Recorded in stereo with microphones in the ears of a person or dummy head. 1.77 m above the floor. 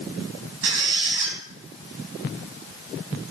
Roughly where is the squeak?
Right.